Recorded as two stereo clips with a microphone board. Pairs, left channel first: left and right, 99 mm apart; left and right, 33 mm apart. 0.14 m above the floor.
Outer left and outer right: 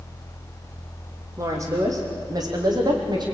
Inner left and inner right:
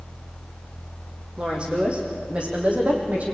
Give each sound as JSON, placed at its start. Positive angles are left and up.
{"t": 1.4, "sound": "a woman speaking", "side_deg": -30, "distance_m": 6.0}